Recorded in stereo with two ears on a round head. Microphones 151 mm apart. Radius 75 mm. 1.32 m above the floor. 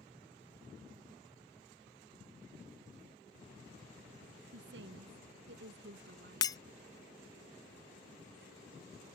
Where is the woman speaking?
75° right (ahead or behind); by 6.7 s 70° right (ahead or behind).